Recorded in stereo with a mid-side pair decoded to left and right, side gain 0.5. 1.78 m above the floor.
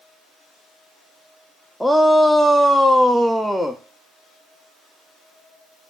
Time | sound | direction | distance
1.8 | a shout | 5° right | 0.5 m